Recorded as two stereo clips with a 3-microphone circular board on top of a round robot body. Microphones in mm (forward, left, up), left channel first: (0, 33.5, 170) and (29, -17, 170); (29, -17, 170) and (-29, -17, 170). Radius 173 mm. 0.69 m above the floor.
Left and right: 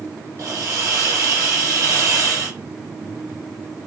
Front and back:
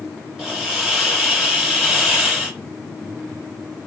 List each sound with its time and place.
0.4 s a hiss: 100° right, 5 m